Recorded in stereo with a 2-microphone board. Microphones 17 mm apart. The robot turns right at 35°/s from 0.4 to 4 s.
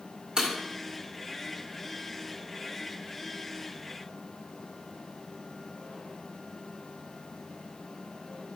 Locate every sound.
0.4 s breaking glass: 45° right (ahead or behind), 1.9 m; by 0.5 s 40° right (ahead or behind), 1.9 m